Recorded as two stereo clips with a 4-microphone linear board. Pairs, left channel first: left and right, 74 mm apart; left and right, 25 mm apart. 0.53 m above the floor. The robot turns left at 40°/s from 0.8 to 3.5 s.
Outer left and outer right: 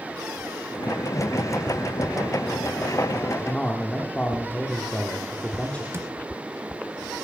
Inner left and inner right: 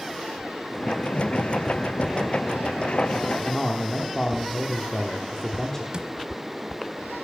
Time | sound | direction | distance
3.4 | a man speaking | 20° left (ahead or behind) | 1.1 m
5.9 | a drawer | 35° right (ahead or behind) | 1.3 m